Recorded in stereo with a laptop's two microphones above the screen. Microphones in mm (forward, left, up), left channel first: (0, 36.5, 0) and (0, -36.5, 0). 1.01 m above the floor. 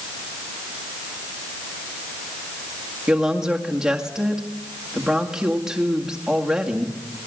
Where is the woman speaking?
10° right (ahead or behind), 2.0 m.